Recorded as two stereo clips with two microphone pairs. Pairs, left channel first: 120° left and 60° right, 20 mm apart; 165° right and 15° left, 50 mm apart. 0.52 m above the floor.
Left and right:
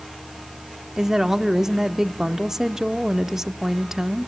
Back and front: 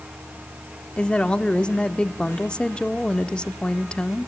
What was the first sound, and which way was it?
A woman speaking, 110° right.